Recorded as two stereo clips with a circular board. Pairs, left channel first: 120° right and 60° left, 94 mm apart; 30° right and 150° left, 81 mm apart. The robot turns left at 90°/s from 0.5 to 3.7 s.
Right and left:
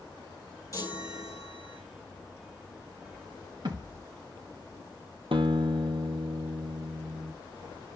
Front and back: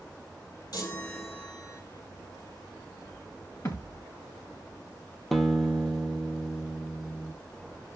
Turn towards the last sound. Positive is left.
turn(degrees=55)